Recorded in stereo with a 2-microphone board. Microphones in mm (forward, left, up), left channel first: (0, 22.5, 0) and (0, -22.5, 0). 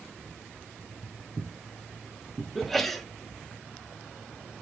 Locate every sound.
0.8 s footsteps: 45° right (ahead or behind), 0.8 m; by 2.5 s 20° right (ahead or behind), 1.3 m
2.5 s a sneeze: centre (ahead or behind), 0.6 m